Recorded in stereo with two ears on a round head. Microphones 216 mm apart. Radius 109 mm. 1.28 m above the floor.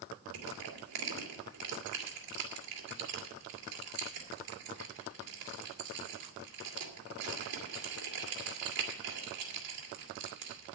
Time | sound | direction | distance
0.3 | crushing | 80° right | 2.5 m